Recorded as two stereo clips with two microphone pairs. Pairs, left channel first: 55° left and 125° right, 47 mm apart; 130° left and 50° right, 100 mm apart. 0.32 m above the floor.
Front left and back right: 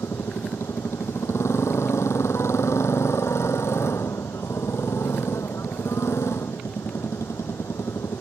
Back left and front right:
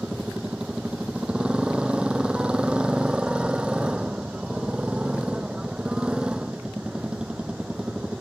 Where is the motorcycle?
30° left.